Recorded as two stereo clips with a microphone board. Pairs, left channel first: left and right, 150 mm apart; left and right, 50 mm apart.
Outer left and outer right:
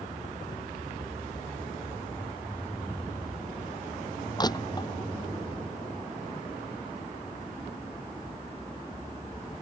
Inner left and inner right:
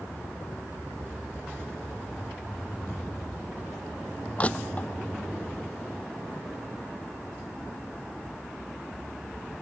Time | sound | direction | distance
4.4 | crushing | 25° left (ahead or behind) | ?